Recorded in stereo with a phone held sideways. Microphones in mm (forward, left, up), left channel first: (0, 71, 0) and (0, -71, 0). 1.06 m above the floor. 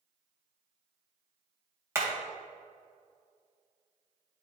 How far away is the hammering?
About 2.5 m.